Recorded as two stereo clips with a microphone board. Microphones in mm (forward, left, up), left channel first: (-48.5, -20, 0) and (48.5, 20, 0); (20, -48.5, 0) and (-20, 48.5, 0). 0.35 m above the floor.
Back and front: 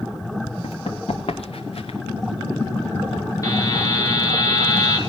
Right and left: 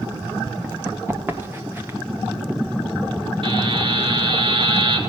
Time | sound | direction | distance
0.6 | running footsteps | straight behind | 2.5 m
3.4 | a buzzer | 145° left | 2 m